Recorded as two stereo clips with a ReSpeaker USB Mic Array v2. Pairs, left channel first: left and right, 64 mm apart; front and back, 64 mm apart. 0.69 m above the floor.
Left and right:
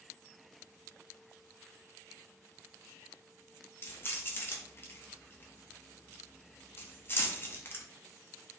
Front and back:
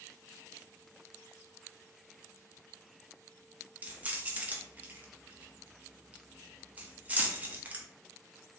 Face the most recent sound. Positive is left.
turn(degrees=125)